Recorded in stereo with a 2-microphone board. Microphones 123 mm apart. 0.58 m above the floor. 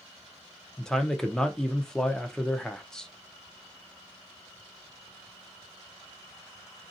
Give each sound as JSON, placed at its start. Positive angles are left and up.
{"t": 0.8, "sound": "a man speaking", "side_deg": 5, "distance_m": 0.6}